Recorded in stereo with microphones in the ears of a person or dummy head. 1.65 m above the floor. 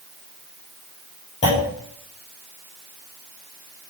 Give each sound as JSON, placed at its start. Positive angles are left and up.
{"t": 1.4, "sound": "a clunk", "side_deg": 35, "distance_m": 8.5}